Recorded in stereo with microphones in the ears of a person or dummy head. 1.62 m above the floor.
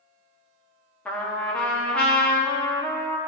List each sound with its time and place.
1.1 s a trumpet: 10° left (ahead or behind), 1.0 m